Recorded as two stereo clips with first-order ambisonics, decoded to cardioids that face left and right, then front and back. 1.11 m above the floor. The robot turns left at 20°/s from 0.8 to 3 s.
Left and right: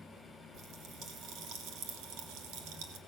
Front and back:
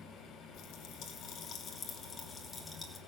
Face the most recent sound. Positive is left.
turn(degrees=-85)